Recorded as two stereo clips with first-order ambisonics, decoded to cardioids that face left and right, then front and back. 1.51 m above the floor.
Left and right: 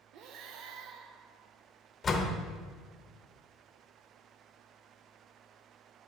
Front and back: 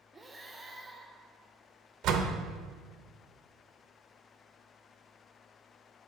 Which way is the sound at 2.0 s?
155° left.